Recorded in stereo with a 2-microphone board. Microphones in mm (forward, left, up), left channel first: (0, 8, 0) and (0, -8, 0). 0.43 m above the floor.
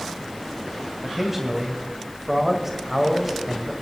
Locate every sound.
1.0 s a man speaking: 15° right (ahead or behind), 2 m